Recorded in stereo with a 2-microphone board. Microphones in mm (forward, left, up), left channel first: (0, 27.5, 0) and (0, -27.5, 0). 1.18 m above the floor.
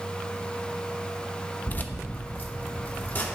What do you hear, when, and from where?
1.7 s keys jangling: 30° left (ahead or behind), 0.6 m; by 3.3 s 35° left (ahead or behind), 1.7 m